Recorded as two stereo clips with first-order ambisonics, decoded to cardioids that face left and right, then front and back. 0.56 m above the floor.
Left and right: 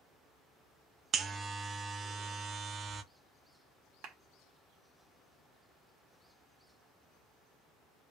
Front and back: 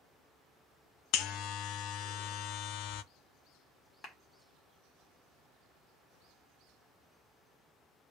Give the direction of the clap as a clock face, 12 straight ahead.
2 o'clock.